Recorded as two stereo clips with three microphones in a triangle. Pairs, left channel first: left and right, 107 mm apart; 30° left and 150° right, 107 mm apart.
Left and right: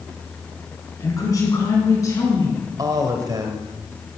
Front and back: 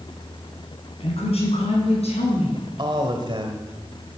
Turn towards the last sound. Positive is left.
turn(degrees=-130)